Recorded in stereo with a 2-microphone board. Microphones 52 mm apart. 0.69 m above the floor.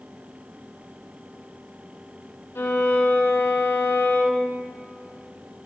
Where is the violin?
55° left (ahead or behind), 1.2 m.